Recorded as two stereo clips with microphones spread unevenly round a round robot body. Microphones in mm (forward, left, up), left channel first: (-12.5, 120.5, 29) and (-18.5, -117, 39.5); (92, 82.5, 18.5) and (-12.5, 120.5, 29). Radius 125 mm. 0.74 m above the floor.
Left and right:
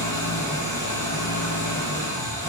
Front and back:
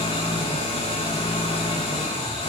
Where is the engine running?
10° left, 8.5 m.